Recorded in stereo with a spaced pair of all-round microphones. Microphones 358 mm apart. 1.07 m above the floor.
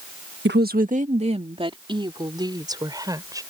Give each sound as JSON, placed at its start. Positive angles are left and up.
{"t": 0.5, "sound": "a woman speaking", "side_deg": -30}